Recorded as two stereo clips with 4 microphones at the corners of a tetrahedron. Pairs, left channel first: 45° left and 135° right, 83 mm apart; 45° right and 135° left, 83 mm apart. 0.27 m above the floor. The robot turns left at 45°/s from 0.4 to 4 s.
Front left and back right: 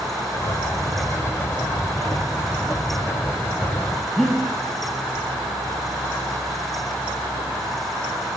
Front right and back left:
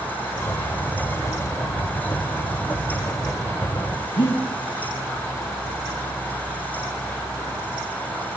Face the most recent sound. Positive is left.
turn(degrees=-40)